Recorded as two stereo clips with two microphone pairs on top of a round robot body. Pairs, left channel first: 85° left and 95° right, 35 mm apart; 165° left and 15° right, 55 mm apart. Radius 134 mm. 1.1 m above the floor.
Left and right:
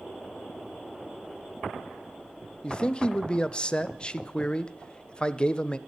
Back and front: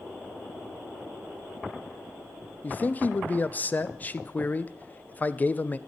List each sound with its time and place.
2.6 s a man speaking: 120° left, 0.5 m